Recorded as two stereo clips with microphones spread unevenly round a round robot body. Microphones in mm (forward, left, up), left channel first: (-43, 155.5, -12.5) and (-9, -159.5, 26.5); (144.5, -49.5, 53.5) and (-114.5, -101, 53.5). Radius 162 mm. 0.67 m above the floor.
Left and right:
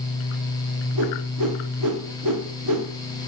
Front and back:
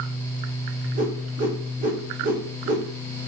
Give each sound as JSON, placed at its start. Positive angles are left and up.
{"t": 0.9, "sound": "a whoosh", "azimuth_deg": -110, "distance_m": 1.7}